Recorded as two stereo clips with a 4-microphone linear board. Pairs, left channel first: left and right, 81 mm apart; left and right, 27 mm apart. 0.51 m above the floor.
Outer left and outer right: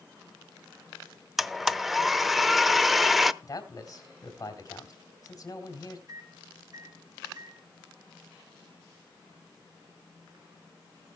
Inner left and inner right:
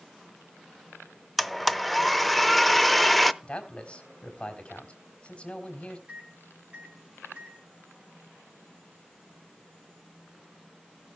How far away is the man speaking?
About 3 m.